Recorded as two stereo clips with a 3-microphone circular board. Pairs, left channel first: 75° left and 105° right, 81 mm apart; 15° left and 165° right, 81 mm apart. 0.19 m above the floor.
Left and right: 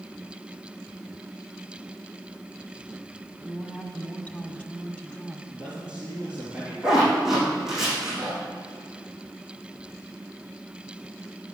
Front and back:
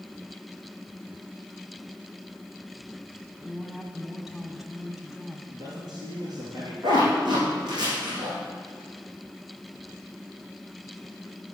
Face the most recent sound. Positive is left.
turn(degrees=170)